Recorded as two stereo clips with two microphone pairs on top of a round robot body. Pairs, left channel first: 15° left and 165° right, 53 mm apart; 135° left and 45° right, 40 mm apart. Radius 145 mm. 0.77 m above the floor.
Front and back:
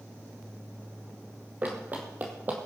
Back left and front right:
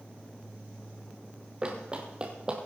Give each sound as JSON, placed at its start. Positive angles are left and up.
{"t": 1.6, "sound": "running footsteps", "azimuth_deg": -105, "distance_m": 1.6}